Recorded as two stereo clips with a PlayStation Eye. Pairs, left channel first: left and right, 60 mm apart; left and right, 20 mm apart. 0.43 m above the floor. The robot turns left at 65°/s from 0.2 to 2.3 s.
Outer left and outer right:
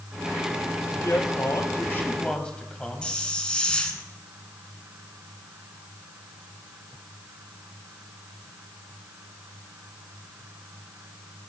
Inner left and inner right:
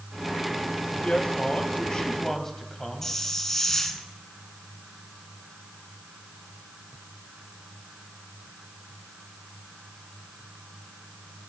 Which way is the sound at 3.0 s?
15° left (ahead or behind).